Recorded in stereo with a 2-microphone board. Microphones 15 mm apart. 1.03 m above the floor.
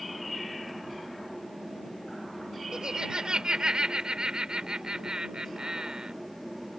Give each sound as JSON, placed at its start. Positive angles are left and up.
{"t": 2.7, "sound": "laughter", "side_deg": -85}